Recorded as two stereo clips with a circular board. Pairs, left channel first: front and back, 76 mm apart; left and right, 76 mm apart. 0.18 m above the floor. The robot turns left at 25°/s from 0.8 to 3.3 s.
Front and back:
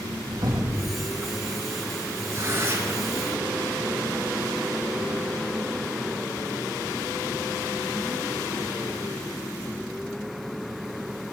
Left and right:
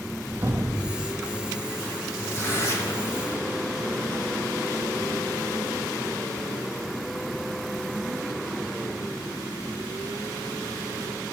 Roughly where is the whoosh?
Behind right.